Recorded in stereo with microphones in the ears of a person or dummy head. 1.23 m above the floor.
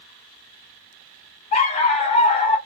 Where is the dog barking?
40° left (ahead or behind), 1.0 m.